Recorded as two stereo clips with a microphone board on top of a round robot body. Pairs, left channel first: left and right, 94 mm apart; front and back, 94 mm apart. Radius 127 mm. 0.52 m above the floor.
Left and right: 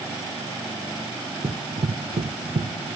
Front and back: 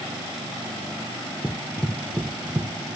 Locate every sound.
1.4 s running footsteps: 70° right, 0.6 m; by 2.7 s 110° right, 1.5 m